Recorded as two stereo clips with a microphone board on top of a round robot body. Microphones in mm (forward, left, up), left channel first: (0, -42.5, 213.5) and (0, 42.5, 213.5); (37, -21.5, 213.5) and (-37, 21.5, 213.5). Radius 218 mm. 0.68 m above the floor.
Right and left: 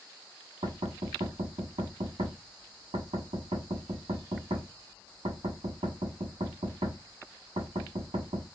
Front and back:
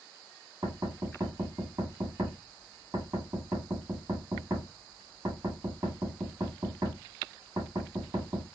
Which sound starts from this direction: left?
Knocking, at 0.6 s.